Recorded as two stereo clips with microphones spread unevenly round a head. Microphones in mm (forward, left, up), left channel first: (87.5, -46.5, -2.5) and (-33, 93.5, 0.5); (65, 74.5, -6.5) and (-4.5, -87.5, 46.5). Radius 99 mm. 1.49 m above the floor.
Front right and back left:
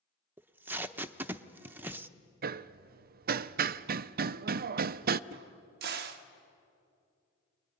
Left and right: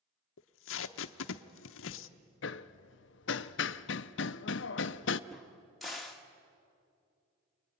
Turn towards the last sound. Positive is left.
turn(degrees=165)